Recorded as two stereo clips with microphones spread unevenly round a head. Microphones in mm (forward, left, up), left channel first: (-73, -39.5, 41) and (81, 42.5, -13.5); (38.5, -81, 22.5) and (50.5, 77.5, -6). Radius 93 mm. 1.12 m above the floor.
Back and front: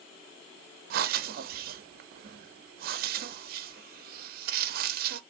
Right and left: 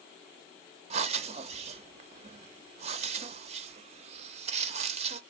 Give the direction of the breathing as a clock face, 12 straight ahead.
10 o'clock.